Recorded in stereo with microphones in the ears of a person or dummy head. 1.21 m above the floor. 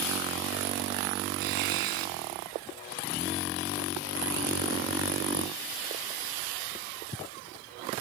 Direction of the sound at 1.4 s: 50° right (ahead or behind).